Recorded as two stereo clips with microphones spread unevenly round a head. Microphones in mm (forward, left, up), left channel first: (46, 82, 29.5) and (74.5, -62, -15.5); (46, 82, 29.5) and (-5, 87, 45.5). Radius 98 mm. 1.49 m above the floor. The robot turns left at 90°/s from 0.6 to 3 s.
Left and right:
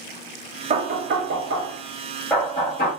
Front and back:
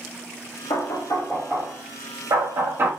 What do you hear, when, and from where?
0.7 s knocking: 35° right, 0.8 m; by 2.9 s 125° left, 0.8 m